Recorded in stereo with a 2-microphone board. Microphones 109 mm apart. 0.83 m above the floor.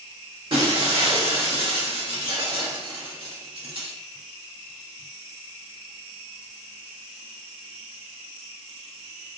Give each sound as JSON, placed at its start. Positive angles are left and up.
{"t": 0.5, "sound": "breaking glass", "side_deg": -45, "distance_m": 1.6}